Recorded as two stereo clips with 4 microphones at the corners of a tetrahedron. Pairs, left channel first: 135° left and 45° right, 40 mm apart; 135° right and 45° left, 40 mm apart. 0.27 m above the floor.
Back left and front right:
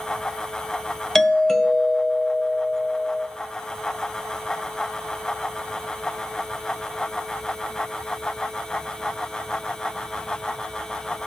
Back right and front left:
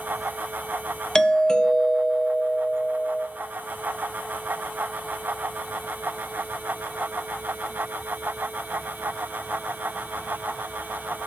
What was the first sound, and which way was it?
A doorbell, 170° right.